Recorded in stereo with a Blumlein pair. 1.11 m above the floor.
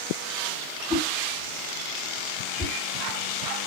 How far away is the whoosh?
About 1.5 m.